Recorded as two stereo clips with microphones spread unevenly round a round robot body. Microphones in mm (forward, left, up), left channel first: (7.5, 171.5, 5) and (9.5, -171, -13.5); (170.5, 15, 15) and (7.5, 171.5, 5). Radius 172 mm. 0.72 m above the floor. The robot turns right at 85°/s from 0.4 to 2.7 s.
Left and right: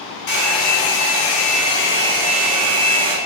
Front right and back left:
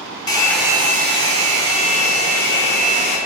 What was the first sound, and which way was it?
A hair dryer, 30° left.